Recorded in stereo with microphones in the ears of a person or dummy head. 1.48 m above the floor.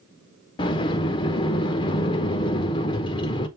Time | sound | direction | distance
0.6 | a sliding door | 25° left (ahead or behind) | 0.8 m